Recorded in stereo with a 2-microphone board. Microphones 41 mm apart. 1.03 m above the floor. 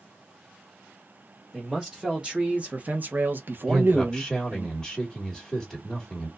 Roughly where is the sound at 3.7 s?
Centre.